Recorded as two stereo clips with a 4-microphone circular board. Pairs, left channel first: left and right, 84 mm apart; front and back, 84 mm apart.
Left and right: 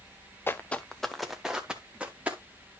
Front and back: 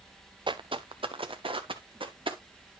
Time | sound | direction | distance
0.5 | footsteps | 155° left | 0.6 m